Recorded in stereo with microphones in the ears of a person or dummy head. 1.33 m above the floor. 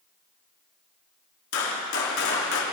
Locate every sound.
1.5 s a gunshot: 70° left (ahead or behind), 3 m